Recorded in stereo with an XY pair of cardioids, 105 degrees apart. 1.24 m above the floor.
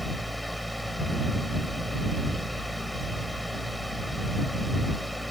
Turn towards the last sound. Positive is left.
turn(degrees=5)